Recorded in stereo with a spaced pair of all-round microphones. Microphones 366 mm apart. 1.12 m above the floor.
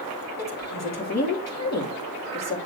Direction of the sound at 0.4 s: 45° left (ahead or behind).